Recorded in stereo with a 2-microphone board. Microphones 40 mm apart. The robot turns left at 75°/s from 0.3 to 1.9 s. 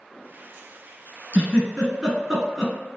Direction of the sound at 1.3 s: 30° right (ahead or behind).